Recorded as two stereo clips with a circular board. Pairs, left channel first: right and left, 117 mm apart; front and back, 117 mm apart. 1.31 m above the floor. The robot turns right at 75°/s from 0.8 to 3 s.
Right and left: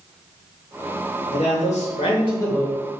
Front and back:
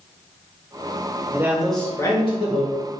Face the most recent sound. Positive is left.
turn(degrees=10)